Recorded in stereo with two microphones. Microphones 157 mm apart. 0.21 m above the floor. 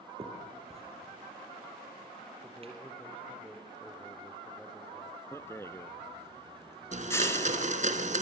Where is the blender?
50° right (ahead or behind), 2.5 m.